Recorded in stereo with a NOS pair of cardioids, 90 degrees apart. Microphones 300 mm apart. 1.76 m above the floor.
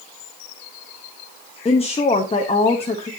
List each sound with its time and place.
1.6 s a woman speaking: 20° left, 1.0 m